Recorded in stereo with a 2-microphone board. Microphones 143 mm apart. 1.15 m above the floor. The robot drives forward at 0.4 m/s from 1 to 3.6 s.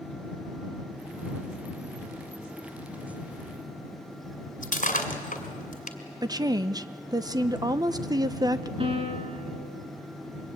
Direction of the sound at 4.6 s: 65° left (ahead or behind).